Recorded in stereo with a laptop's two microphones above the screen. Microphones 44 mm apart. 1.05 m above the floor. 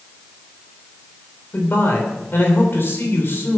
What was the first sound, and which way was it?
A man speaking, 55° left (ahead or behind).